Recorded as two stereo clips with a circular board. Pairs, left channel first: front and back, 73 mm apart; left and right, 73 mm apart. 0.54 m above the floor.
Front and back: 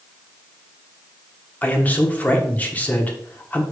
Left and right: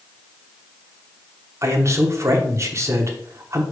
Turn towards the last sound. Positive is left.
turn(degrees=-60)